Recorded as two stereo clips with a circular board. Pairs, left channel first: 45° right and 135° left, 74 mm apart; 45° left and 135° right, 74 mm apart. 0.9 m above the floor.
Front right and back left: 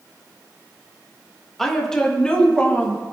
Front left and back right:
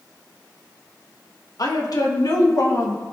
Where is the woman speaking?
40° left, 1.4 m; by 3.0 s 20° left, 2 m.